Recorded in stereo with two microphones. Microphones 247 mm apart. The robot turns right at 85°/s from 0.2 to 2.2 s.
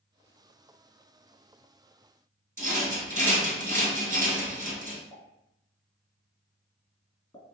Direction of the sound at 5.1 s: 15° left (ahead or behind).